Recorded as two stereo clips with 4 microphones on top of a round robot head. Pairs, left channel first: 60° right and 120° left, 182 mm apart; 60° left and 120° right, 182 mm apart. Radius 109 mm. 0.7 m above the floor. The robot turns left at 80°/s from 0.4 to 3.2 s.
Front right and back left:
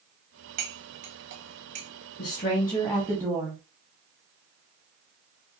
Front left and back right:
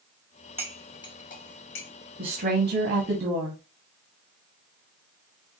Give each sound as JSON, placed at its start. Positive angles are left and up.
{"t": 0.6, "sound": "cutlery clinking", "azimuth_deg": 160, "distance_m": 0.8}
{"t": 2.2, "sound": "a woman speaking", "azimuth_deg": -85, "distance_m": 1.2}